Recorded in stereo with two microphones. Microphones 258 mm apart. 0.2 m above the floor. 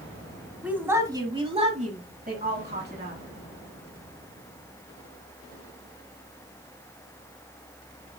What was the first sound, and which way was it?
A woman speaking, 5° right (ahead or behind).